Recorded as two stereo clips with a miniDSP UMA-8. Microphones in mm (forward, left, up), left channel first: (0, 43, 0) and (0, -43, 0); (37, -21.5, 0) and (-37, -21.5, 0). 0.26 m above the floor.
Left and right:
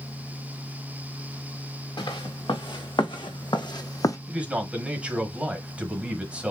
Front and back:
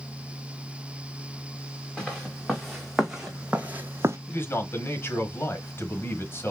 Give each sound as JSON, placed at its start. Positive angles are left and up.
{"t": 2.0, "sound": "footsteps", "azimuth_deg": 80, "distance_m": 1.5}
{"t": 4.3, "sound": "a man speaking", "azimuth_deg": -25, "distance_m": 1.2}